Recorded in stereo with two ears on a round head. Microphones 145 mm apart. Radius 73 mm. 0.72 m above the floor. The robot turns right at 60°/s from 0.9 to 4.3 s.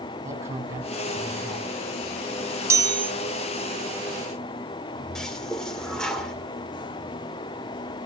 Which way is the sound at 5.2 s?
5° left (ahead or behind).